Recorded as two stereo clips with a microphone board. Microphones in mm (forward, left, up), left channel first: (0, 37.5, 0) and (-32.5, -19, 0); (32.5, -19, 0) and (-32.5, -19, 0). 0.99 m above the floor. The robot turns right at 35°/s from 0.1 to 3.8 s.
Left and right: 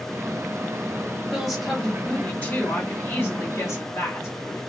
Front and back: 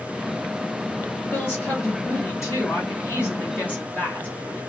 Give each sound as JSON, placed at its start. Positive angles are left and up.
{"t": 1.3, "sound": "a woman speaking", "azimuth_deg": -40, "distance_m": 1.1}